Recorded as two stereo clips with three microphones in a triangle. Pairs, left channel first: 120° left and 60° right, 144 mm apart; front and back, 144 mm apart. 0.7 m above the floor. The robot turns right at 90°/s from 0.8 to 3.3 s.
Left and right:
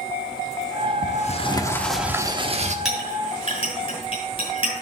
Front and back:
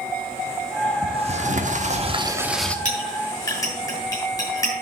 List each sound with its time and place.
1.0 s a sliding door: 125° left, 1.1 m; by 2.8 s 80° right, 1.1 m
2.9 s a clink: 30° left, 5.5 m; by 4.7 s 70° left, 5.5 m